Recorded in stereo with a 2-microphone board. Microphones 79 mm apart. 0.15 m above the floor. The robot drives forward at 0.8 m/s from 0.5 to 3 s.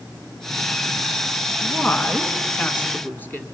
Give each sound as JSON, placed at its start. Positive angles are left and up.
{"t": 1.6, "sound": "a woman speaking", "side_deg": 20, "distance_m": 1.5}